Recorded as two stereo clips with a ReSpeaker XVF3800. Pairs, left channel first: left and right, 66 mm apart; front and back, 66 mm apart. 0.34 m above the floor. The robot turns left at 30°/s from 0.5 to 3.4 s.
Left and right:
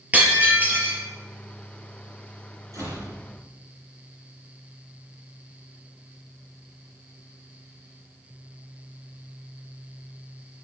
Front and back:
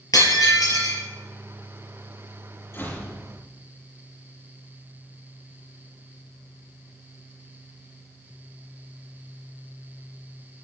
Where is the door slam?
50° right, 8.5 m; by 3.1 s 60° right, 8.5 m.